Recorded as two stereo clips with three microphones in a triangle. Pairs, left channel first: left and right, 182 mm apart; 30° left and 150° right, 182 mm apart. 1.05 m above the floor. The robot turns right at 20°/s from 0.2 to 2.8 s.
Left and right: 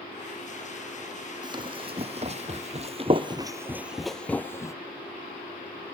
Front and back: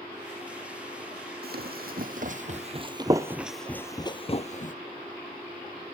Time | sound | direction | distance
1.4 | running footsteps | 155° right | 2.5 m